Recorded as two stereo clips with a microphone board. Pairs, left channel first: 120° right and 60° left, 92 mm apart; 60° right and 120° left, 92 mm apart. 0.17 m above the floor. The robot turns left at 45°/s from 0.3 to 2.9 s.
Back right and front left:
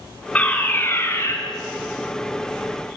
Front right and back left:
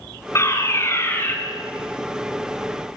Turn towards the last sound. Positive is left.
turn(degrees=-175)